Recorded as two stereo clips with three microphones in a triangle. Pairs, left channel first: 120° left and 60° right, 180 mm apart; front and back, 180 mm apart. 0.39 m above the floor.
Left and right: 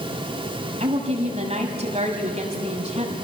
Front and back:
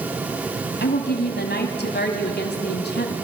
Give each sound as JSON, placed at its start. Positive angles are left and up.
{"t": 0.8, "sound": "a woman speaking", "azimuth_deg": -10, "distance_m": 2.5}